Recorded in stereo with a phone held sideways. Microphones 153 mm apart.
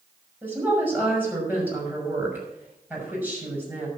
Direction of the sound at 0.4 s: 10° right (ahead or behind).